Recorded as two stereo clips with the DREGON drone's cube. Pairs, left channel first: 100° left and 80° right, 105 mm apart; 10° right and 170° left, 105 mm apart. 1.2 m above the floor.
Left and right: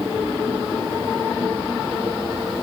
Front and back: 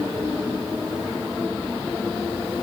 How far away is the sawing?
I don't hear sawing.